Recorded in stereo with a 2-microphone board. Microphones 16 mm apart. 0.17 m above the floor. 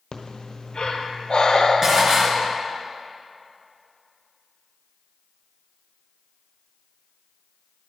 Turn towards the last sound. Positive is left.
turn(degrees=-30)  # may be behind; listen again after turning